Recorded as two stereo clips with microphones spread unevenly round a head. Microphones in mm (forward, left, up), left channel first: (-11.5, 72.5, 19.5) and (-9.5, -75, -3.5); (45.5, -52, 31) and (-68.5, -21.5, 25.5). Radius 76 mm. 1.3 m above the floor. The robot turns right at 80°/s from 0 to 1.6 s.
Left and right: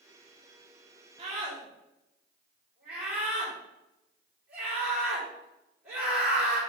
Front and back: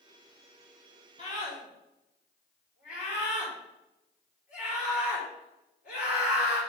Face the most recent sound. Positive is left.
turn(degrees=-10)